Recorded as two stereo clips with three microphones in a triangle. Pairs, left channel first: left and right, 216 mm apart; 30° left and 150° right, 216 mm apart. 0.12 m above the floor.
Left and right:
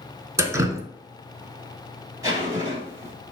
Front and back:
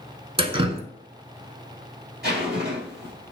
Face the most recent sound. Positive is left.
turn(degrees=-160)